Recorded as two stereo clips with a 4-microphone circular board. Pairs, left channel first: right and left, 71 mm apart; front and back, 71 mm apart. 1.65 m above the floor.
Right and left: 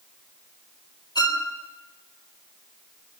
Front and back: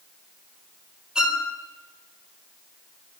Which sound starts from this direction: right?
A violin, at 1.1 s.